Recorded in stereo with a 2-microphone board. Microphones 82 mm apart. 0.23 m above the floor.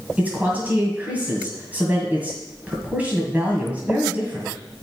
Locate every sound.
0.2 s a man speaking: 20° right (ahead or behind), 1.9 m